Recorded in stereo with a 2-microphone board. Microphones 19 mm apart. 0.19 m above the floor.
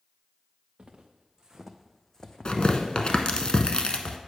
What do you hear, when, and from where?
0.8 s footsteps: 55° right (ahead or behind), 1.2 m; by 3.2 s 70° left (ahead or behind), 1.2 m
2.5 s tearing paper: 55° left (ahead or behind), 0.7 m